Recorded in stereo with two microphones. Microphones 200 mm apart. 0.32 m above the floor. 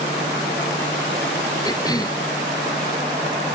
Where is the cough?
20° left (ahead or behind).